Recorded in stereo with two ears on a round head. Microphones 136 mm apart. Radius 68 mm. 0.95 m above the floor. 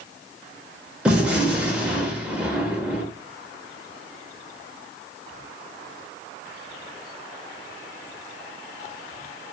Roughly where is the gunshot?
Centre.